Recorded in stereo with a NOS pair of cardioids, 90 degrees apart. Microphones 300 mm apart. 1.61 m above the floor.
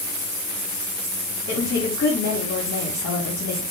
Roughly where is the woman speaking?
Ahead left.